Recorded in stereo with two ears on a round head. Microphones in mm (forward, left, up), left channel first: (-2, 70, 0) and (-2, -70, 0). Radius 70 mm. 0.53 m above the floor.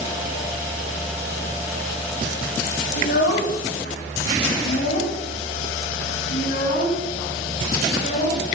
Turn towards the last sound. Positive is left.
turn(degrees=45)  # may be behind; listen again after turning